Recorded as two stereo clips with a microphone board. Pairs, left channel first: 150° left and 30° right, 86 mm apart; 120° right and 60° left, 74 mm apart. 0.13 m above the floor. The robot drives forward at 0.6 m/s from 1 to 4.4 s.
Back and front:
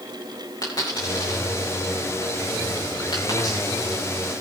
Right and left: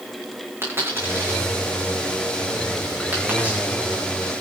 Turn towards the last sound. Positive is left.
turn(degrees=135)